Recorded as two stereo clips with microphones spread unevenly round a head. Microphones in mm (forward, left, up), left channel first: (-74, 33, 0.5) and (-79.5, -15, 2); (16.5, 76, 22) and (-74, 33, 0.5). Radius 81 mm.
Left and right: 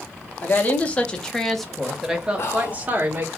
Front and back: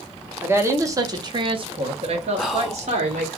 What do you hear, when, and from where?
0.4 s a woman speaking: 135° left, 1.2 m; by 3.4 s 145° right, 1.4 m
2.4 s whispering: 120° left, 0.8 m